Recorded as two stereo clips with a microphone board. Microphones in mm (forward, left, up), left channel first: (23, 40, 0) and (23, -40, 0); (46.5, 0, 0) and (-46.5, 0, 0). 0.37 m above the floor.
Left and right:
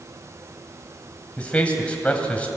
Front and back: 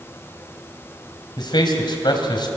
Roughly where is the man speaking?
Ahead.